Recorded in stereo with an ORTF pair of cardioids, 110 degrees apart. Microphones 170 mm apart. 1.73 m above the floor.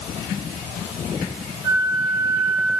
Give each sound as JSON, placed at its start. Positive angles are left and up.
{"t": 1.6, "sound": "a flute", "azimuth_deg": -15, "distance_m": 1.6}